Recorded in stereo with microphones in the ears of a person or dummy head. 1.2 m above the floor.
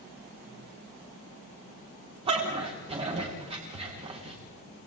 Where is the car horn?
I don't hear a car horn.